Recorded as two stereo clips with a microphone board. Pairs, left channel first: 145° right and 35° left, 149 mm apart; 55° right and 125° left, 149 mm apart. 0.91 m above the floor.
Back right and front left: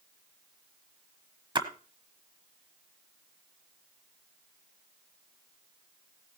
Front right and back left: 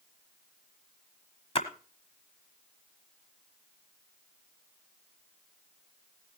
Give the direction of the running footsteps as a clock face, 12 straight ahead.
No running footsteps in this recording.